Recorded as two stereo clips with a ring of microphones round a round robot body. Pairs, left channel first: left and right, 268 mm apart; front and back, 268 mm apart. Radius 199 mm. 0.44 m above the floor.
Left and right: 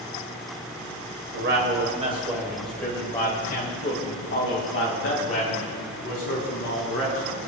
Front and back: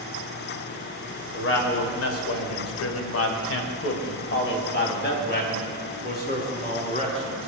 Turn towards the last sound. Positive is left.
turn(degrees=60)